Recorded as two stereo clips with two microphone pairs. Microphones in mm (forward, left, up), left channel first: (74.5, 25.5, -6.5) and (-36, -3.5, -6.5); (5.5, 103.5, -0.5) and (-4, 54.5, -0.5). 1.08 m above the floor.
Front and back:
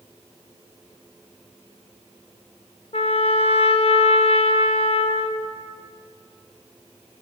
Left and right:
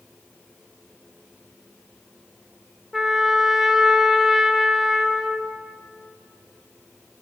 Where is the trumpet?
10° right, 0.6 m.